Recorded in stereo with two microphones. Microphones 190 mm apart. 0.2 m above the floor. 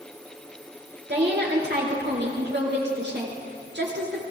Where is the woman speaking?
65° right (ahead or behind), 3.5 m.